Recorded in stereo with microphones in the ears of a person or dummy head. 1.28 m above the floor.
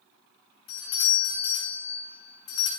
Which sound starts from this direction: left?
A doorbell, at 0.7 s.